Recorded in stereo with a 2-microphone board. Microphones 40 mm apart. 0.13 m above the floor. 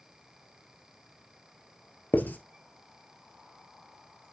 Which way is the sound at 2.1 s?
50° left (ahead or behind).